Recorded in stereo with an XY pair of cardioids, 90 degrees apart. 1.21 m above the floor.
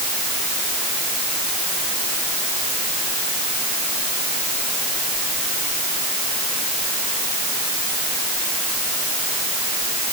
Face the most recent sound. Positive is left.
No sound to turn to.